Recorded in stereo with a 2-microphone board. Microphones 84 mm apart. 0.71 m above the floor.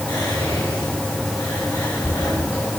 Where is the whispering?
60° left (ahead or behind), 2 m.